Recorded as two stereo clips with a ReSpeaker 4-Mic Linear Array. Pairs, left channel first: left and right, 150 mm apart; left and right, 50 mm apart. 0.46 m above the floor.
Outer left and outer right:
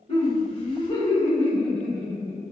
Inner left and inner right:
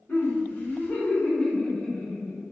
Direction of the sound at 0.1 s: 40° left (ahead or behind).